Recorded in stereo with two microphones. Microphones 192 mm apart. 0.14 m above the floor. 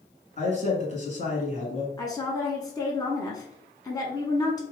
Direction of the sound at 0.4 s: 40° left (ahead or behind).